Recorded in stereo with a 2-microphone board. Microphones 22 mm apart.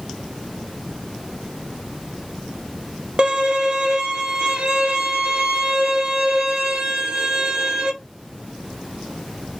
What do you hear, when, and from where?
3.2 s a violin: 50° right (ahead or behind), 0.5 m